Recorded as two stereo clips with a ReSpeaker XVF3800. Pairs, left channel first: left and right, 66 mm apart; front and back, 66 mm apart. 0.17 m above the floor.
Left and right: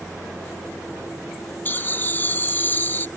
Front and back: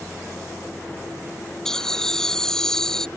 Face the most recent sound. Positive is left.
turn(degrees=75)